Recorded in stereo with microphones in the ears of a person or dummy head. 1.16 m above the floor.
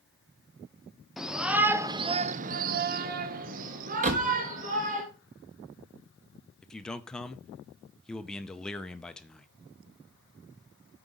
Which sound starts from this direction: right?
A door slam, at 4.0 s.